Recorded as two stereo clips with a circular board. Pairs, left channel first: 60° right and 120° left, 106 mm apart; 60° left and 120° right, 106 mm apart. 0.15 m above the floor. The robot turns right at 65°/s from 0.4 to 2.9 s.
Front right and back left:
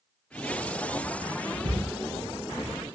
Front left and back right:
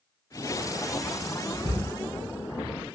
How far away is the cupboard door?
About 2 m.